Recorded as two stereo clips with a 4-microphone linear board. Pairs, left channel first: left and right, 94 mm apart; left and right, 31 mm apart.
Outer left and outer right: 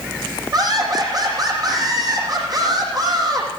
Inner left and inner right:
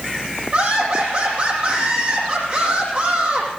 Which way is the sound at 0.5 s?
45° right (ahead or behind).